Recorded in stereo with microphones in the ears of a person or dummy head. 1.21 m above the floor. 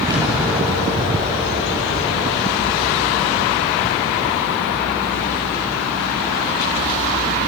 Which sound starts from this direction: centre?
An explosion, at 0.1 s.